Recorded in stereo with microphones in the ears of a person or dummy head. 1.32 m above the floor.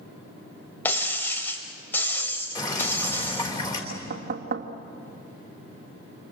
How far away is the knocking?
About 1.8 m.